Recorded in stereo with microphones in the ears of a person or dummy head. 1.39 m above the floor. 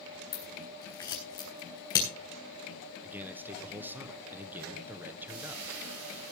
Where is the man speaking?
15° right (ahead or behind), 1.4 m.